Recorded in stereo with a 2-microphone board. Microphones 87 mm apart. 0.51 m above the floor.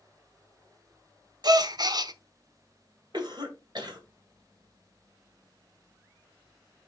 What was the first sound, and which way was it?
A gasp, 50° right (ahead or behind).